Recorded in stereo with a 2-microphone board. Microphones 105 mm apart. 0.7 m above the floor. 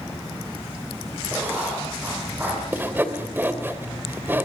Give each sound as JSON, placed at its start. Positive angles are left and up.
{"t": 1.3, "sound": "writing", "side_deg": -20, "distance_m": 8.5}
{"t": 2.7, "sound": "sawing", "side_deg": -20, "distance_m": 2.5}